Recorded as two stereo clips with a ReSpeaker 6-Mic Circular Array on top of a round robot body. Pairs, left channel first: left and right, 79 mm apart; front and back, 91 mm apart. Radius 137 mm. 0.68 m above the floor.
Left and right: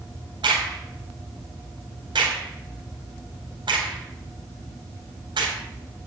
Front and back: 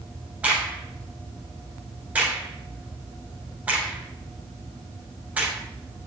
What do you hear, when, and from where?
0.4 s a crack: 105° right, 4.5 m